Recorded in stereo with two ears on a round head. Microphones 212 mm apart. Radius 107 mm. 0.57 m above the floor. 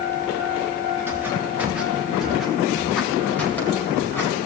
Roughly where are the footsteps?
Centre.